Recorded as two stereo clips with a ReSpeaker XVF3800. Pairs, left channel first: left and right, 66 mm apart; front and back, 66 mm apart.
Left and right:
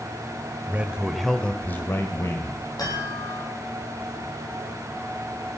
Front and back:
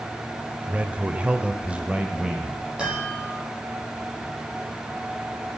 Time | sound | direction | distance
0.7 | a man speaking | 125° right | 1.4 m
2.8 | a chime | 105° left | 9 m